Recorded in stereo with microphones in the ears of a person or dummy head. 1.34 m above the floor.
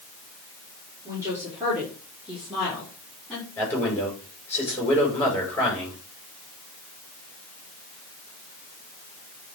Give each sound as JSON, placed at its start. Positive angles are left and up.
{"t": 1.1, "sound": "a woman speaking", "side_deg": -20, "distance_m": 3.5}
{"t": 3.6, "sound": "a man speaking", "side_deg": 10, "distance_m": 5.0}